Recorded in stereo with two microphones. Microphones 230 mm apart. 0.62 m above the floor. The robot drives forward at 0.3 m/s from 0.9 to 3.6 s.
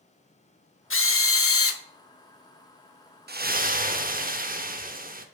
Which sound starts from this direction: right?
A splash, at 3.3 s.